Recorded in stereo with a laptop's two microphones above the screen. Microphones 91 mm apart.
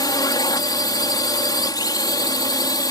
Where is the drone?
50° left (ahead or behind).